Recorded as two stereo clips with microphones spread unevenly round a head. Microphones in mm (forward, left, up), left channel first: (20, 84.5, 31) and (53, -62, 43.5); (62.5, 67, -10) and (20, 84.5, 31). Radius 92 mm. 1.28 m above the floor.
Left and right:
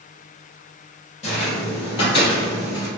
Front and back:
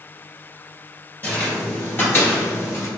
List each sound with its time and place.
1.2 s footsteps: 65° left, 1.8 m; by 2.9 s 60° left, 1.2 m